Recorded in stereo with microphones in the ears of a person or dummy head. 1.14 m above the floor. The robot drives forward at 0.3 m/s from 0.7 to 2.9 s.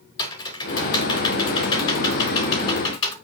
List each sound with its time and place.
0.2 s typing on a keyboard: 20° left (ahead or behind), 4 m; by 3.1 s 25° left (ahead or behind), 3.5 m